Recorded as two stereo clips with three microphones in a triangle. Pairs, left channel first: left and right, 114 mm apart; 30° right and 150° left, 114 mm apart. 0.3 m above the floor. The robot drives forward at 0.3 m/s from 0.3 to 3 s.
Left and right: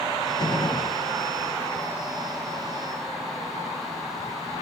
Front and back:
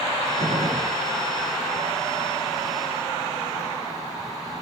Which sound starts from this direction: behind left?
A gunshot, at 0.4 s.